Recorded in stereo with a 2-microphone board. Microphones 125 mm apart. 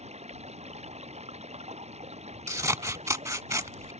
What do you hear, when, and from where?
0.0 s running water: 60° right (ahead or behind)
2.5 s scissors: 25° right (ahead or behind)